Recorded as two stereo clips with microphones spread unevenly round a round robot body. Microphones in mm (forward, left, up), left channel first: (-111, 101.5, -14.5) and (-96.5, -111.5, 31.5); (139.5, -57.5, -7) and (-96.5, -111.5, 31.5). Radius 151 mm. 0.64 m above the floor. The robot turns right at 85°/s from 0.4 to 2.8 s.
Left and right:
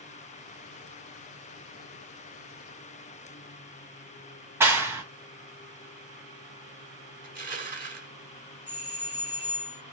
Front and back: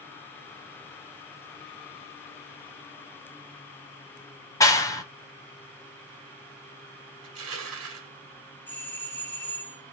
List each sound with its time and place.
4.6 s a clap: 10° left, 0.6 m
7.2 s crushing: 140° right, 1.4 m
8.7 s a doorbell: 75° left, 1.1 m